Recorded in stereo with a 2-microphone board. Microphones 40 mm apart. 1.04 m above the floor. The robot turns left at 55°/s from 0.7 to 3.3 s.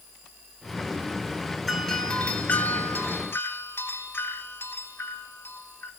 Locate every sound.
1.7 s a doorbell: 175° left, 3.5 m; by 5.9 s 90° left, 3.5 m